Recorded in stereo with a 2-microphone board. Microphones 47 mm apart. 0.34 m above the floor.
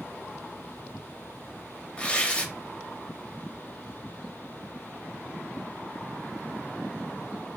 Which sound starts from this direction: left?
Tearing paper, at 2.0 s.